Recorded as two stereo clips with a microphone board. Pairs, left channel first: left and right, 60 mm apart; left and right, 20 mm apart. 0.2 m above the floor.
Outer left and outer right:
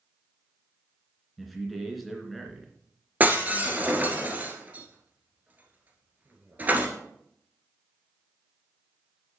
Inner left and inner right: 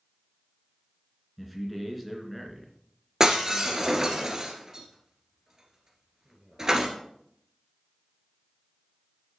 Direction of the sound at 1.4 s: Centre (ahead or behind).